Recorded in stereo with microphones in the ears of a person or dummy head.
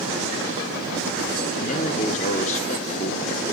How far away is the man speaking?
About 1.5 m.